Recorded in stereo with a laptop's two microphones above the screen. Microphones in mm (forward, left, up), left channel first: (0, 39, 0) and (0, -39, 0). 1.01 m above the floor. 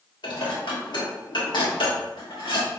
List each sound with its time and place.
0.2 s dishes clattering: 75° left (ahead or behind), 1.4 m